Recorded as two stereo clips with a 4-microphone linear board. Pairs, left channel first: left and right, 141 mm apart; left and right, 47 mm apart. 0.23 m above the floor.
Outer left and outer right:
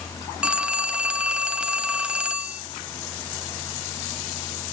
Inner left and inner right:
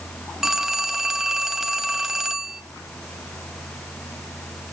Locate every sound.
0.4 s a phone ringing: 5° right (ahead or behind), 0.9 m